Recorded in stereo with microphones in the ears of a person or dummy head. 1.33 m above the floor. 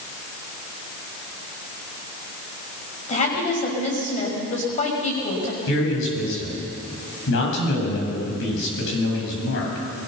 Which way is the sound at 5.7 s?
70° left (ahead or behind).